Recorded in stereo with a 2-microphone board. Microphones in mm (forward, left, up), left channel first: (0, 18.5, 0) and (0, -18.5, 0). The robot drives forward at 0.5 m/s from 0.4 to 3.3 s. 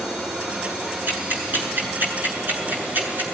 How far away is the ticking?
About 7.5 m.